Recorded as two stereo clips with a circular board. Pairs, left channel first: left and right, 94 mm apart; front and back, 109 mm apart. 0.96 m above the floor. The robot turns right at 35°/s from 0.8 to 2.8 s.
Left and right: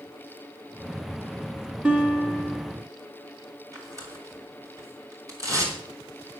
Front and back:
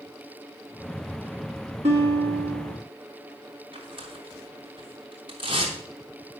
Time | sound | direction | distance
1.8 | a guitar | 170° right | 3 m
3.7 | tearing paper | 140° right | 3 m